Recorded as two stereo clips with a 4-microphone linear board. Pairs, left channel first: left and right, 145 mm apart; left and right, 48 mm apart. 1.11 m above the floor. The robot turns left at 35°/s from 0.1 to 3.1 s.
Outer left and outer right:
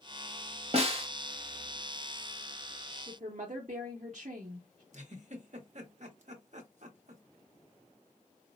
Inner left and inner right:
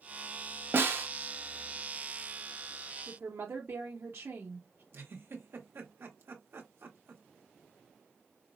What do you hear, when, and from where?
0.7 s a snare drum: 50° right (ahead or behind), 0.8 m; by 1.1 s 40° right (ahead or behind), 0.8 m
3.1 s a woman speaking: 55° right (ahead or behind), 0.8 m
4.9 s a giggle: 60° right (ahead or behind), 0.8 m